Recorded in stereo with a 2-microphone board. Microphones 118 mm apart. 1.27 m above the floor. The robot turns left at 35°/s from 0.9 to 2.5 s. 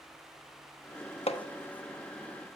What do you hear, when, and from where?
1.3 s hammering: 60° left (ahead or behind), 1.0 m